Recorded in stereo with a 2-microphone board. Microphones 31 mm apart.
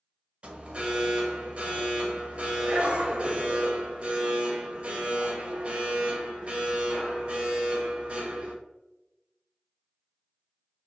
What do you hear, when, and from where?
0.4 s an alarm: 40° right (ahead or behind), 0.6 m